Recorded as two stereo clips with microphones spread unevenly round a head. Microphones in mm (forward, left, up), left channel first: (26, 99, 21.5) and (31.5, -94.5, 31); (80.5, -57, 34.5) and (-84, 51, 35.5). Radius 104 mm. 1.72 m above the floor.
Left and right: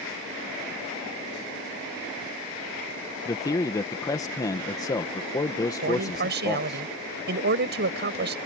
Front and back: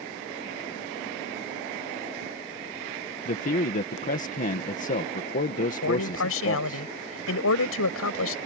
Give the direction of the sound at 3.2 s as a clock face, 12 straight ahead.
11 o'clock.